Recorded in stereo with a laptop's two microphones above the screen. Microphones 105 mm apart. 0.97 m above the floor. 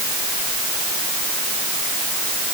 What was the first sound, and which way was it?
Only background noise.